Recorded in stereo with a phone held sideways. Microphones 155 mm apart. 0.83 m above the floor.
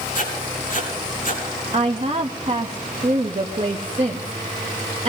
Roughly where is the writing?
Left.